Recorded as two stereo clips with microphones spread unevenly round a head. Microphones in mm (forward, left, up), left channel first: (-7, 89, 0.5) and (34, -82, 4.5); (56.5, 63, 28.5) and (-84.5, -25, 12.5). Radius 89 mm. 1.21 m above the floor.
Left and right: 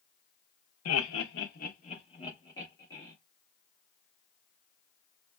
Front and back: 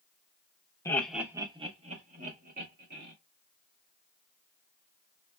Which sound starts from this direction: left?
Laughter, at 0.8 s.